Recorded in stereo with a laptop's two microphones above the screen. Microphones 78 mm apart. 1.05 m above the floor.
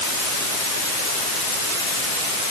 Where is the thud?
No thud in this recording.